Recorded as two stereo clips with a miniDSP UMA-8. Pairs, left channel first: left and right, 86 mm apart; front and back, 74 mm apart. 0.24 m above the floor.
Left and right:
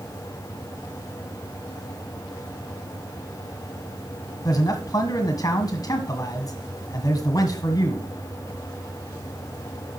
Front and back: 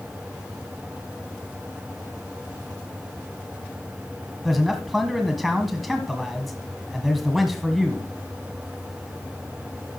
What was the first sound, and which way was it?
A man speaking, 90° left.